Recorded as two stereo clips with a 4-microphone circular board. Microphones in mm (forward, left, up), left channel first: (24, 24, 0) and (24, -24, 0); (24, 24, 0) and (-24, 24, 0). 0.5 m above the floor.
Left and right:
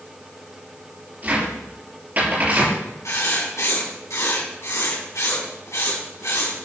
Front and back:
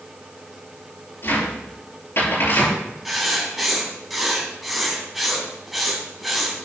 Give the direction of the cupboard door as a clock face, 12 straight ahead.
1 o'clock.